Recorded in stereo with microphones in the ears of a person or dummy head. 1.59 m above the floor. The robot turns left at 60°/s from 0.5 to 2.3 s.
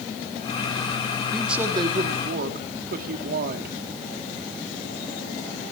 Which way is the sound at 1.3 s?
5° left.